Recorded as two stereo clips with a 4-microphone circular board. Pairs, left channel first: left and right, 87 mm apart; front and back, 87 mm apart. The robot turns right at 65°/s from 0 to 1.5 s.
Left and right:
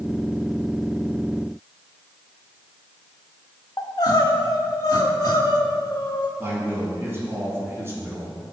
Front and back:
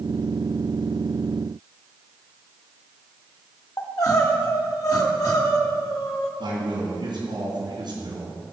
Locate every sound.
3.8 s crying: 45° left, 1.1 m
6.4 s a man speaking: 150° right, 3 m